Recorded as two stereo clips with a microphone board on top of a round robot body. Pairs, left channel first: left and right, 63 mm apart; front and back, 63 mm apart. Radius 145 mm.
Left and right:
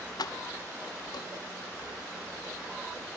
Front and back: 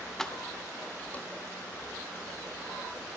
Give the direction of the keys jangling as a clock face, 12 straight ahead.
9 o'clock.